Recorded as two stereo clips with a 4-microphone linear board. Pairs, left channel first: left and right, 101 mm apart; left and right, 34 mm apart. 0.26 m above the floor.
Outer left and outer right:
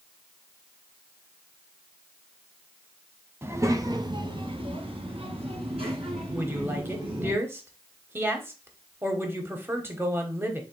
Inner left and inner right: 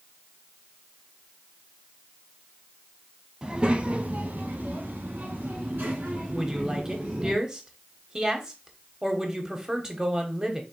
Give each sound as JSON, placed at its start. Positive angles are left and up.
{"t": 3.4, "sound": "a child speaking", "side_deg": -25, "distance_m": 0.9}
{"t": 6.3, "sound": "a woman speaking", "side_deg": -20, "distance_m": 0.9}